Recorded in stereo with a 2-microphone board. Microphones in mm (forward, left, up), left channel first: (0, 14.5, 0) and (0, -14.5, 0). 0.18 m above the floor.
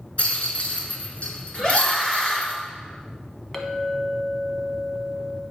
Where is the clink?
15° left (ahead or behind), 0.8 m.